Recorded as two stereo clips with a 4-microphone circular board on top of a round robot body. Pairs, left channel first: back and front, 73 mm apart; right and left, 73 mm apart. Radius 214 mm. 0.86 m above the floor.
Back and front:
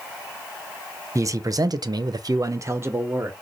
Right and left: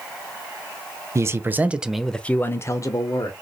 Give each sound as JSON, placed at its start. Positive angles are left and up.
{"t": 1.1, "sound": "a man speaking", "azimuth_deg": 45, "distance_m": 0.7}